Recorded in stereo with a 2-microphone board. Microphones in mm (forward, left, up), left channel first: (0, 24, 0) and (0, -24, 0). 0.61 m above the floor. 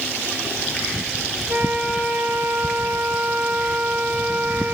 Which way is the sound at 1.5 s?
35° right (ahead or behind).